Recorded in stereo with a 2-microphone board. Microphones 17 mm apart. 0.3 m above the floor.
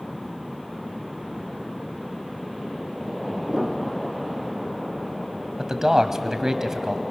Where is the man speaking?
30° right (ahead or behind), 1.4 m.